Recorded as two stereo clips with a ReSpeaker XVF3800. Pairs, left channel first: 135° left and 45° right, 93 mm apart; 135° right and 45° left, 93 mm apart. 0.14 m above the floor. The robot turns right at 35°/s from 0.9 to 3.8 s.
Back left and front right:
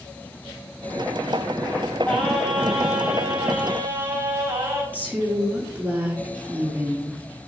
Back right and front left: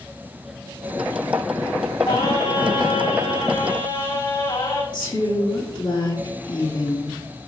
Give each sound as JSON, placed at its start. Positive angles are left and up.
{"t": 2.0, "sound": "singing", "azimuth_deg": -160, "distance_m": 3.5}
{"t": 4.9, "sound": "a woman speaking", "azimuth_deg": -115, "distance_m": 4.0}